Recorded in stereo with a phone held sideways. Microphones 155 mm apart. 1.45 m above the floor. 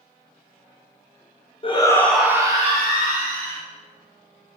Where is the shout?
35° left (ahead or behind), 0.5 m; by 3.6 s 60° right (ahead or behind), 1.0 m.